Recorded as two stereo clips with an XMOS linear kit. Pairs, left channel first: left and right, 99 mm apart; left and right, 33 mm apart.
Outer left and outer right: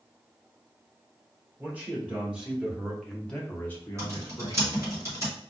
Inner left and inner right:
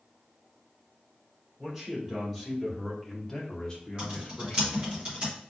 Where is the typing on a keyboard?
35° right (ahead or behind), 1.8 m.